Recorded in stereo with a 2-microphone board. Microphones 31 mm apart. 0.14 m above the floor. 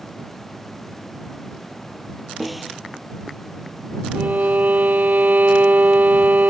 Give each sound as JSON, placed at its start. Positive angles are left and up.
{"t": 2.4, "sound": "a snare drum", "side_deg": -5}
{"t": 4.2, "sound": "a violin", "side_deg": -75}